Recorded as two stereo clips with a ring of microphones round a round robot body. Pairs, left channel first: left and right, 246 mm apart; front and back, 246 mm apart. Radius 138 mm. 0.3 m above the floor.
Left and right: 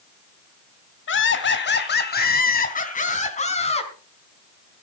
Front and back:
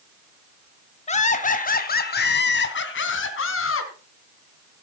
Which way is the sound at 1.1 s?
60° left.